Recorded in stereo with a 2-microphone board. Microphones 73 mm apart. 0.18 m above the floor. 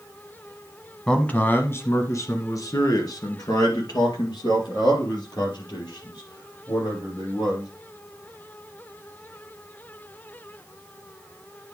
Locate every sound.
1.1 s a man speaking: 10° left (ahead or behind), 1.0 m; by 7.7 s 80° left, 5 m